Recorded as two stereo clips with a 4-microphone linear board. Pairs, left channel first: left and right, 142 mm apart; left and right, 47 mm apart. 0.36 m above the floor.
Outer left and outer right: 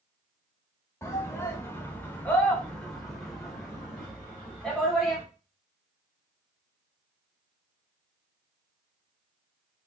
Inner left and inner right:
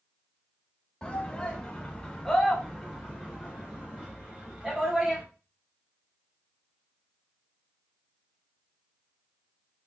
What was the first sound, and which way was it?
A shout, 20° left (ahead or behind).